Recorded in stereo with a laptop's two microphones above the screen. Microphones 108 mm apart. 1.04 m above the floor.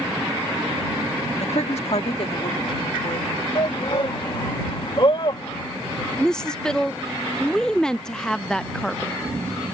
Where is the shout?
50° left (ahead or behind).